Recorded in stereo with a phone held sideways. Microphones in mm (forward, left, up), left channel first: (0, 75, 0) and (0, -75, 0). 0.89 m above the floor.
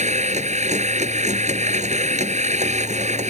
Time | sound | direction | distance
0.0 | a machine running | 50° right (ahead or behind) | ?